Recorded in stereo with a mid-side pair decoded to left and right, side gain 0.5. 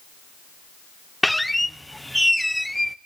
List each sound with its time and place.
1.2 s a squeak: straight ahead, 0.8 m